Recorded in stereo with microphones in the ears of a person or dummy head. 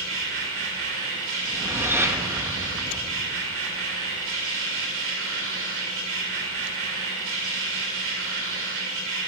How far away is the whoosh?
About 1.6 m.